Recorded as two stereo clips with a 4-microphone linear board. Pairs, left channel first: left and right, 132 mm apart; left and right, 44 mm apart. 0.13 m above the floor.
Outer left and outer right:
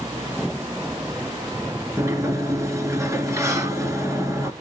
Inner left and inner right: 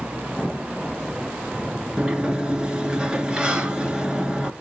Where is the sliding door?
25° right (ahead or behind), 1.1 m.